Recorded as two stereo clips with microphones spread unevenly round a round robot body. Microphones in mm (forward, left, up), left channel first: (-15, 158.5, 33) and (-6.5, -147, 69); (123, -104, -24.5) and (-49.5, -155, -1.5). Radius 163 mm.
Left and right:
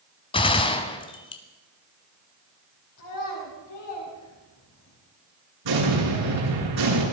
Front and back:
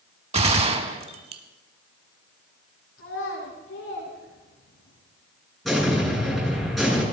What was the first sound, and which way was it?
A gunshot, 165° left.